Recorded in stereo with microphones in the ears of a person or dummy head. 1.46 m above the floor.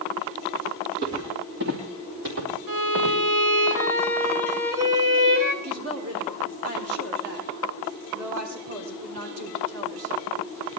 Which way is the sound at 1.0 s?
55° right (ahead or behind).